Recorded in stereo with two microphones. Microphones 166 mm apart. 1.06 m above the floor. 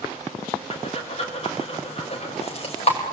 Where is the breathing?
40° left (ahead or behind), 5 m.